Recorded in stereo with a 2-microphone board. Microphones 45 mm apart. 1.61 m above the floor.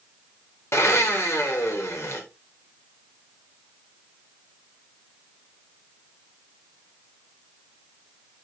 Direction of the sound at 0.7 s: 80° left.